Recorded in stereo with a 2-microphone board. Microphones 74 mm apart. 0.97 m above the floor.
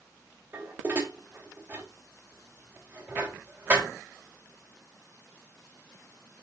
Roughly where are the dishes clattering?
Right.